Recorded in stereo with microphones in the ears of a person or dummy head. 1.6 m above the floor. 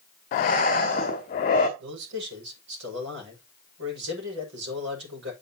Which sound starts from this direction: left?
Breathing, at 0.3 s.